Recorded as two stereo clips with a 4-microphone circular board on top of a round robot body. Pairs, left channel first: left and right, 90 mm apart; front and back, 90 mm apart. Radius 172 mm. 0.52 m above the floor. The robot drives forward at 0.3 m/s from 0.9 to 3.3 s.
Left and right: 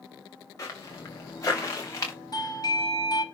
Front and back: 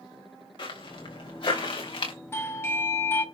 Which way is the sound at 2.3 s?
55° left.